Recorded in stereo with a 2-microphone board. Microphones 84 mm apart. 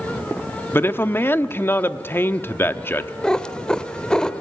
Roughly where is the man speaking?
Left.